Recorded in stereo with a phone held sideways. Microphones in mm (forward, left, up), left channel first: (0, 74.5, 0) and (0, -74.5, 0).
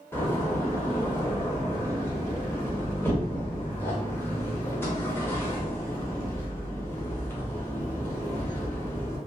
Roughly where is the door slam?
Centre.